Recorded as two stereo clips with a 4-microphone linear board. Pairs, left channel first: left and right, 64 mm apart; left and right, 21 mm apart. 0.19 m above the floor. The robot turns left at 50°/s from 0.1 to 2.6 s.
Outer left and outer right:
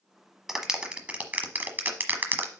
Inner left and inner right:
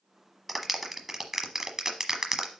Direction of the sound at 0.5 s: 5° right (ahead or behind).